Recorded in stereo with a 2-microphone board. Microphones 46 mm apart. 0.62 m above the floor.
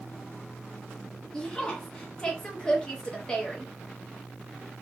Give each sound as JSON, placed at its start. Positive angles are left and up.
{"t": 1.3, "sound": "a woman speaking", "side_deg": 15, "distance_m": 0.7}